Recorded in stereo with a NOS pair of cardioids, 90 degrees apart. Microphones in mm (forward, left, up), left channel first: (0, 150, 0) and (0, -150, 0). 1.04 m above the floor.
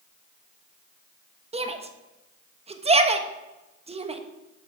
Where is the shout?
20° right, 1.2 m.